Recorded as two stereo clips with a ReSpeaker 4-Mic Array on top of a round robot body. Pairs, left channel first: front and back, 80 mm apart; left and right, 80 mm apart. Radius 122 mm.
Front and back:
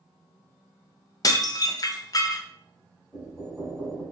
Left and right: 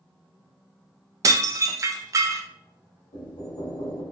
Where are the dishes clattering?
40° right, 0.5 m.